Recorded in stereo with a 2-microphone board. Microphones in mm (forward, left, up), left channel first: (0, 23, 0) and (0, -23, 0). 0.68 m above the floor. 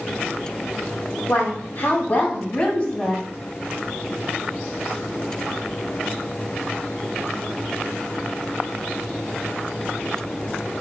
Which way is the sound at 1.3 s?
60° left (ahead or behind).